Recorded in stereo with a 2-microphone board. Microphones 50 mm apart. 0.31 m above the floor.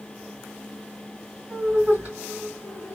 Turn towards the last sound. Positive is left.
turn(degrees=-35)  # may be behind; listen again after turning